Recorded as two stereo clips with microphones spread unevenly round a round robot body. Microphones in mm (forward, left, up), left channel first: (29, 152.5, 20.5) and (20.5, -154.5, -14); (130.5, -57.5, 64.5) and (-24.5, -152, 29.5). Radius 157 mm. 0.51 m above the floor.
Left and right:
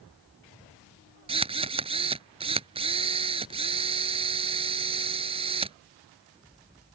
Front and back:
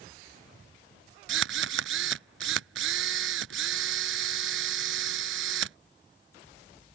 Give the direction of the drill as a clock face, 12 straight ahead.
5 o'clock.